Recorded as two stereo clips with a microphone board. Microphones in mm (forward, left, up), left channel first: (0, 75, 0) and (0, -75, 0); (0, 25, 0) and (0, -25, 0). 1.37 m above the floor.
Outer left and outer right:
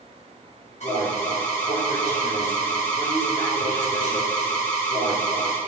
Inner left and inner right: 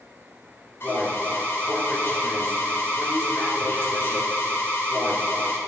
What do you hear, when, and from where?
0.8 s an alarm: 50° left (ahead or behind), 5 m